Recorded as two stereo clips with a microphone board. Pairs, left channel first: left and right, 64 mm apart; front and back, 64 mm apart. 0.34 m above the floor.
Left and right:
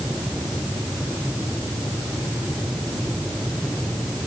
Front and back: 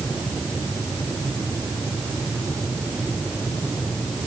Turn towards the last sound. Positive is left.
No sound to turn to.